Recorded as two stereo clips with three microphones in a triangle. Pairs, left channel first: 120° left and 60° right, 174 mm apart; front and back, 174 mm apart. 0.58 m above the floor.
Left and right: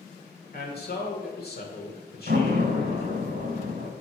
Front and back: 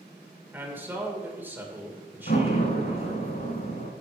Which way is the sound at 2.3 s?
30° right.